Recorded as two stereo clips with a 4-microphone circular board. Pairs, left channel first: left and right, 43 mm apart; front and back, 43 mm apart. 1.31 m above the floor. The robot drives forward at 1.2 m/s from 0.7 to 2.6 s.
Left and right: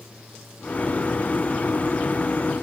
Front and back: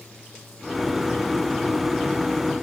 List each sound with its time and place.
Only background noise.